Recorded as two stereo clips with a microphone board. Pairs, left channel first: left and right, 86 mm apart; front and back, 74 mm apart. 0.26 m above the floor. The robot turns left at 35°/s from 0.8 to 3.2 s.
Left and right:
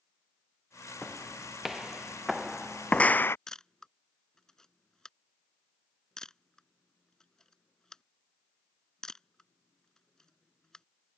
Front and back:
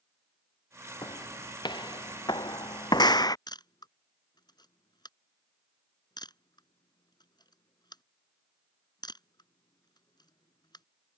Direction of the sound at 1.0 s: 10° left.